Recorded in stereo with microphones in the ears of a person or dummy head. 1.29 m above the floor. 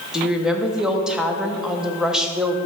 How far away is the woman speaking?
About 0.8 m.